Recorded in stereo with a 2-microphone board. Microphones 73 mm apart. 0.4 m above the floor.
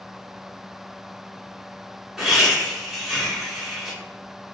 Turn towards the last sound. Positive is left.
turn(degrees=-5)  # may be behind; listen again after turning